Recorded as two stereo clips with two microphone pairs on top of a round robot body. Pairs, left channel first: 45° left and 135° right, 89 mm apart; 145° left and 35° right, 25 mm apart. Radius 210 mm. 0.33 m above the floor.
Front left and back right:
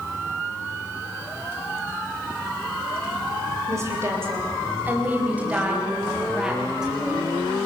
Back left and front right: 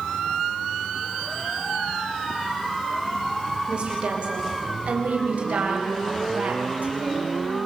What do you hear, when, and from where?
3.7 s a woman speaking: 80° right, 3 m; by 7.3 s 50° right, 5 m